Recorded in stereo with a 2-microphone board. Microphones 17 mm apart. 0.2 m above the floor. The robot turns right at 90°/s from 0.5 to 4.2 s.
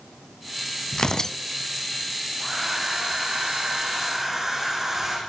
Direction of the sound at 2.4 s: 175° left.